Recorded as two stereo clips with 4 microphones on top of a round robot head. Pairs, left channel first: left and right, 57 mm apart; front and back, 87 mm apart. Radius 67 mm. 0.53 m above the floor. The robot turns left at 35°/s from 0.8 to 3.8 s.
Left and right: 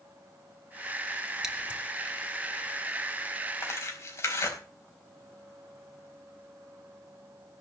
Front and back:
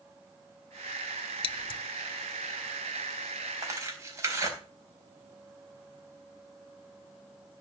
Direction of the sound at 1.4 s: 5° right.